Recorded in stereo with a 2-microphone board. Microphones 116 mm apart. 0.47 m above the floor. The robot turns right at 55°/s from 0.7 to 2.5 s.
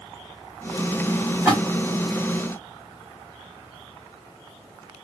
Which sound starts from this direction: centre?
A splash, at 1.4 s.